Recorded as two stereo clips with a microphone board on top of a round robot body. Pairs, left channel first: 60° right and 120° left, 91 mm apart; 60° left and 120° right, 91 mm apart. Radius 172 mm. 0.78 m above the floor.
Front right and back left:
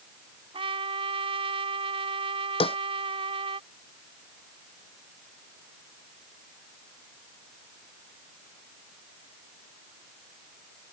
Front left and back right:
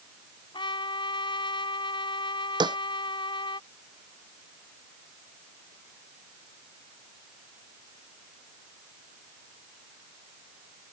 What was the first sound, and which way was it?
A trumpet, 95° left.